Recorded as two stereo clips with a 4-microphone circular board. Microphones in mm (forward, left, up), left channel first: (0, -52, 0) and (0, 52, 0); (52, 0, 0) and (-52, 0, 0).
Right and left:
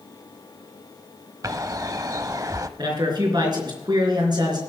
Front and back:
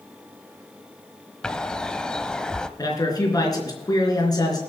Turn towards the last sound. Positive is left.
turn(degrees=50)